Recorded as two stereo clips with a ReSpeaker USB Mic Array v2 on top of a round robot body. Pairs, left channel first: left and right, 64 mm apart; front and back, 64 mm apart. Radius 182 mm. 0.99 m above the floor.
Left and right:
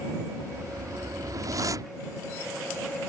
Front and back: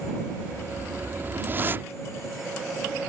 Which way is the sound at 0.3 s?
120° right.